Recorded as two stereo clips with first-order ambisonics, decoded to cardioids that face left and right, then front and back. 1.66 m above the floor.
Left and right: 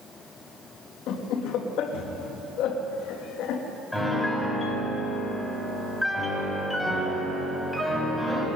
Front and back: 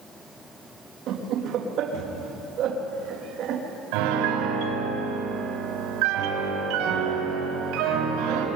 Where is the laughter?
130° left, 3 m.